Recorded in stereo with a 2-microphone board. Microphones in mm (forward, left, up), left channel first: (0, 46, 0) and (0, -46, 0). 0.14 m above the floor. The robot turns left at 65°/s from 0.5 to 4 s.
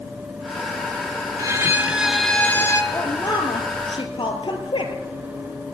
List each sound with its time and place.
1.4 s a violin: 130° right, 0.7 m; by 2.8 s 135° left, 0.7 m
2.9 s a woman speaking: 150° left, 2.5 m; by 4.9 s 80° left, 2.5 m